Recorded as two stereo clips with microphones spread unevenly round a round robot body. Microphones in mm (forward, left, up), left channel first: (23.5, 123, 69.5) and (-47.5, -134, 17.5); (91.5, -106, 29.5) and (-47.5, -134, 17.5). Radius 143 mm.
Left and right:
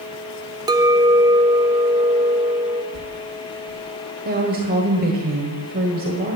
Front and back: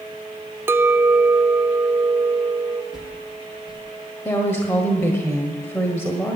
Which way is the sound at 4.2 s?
65° right.